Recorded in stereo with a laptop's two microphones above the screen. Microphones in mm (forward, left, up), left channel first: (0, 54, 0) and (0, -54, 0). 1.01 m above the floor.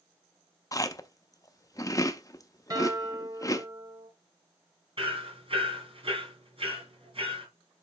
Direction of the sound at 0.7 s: 30° left (ahead or behind).